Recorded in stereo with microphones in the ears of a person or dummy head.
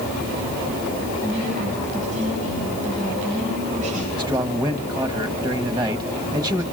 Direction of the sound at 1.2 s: 40° right (ahead or behind).